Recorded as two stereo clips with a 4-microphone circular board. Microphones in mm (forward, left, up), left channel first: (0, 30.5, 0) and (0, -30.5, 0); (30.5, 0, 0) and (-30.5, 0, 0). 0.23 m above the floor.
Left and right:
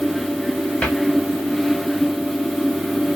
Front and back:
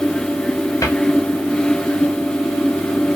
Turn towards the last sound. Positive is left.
turn(degrees=20)